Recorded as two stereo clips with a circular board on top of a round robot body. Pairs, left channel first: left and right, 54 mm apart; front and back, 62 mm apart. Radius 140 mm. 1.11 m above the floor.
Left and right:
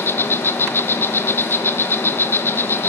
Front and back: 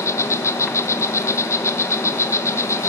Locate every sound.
0.0 s an insect: 40° left, 1.0 m